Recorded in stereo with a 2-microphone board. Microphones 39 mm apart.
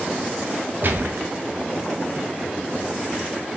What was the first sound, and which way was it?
A gunshot, 50° right (ahead or behind).